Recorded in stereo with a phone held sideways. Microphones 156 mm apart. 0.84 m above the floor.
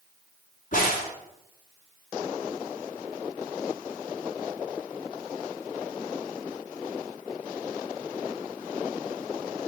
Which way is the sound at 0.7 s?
60° left (ahead or behind).